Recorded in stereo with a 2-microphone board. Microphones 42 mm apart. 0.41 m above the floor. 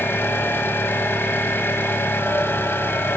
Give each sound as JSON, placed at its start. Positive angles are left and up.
{"t": 0.0, "sound": "an engine running", "side_deg": 65, "distance_m": 1.5}